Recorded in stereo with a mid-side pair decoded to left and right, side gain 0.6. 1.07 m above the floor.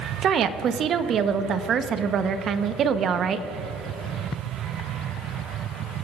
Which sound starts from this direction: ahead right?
A woman speaking, at 0.2 s.